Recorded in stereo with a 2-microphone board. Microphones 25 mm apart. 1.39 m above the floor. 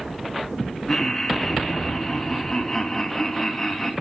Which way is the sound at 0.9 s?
20° left (ahead or behind).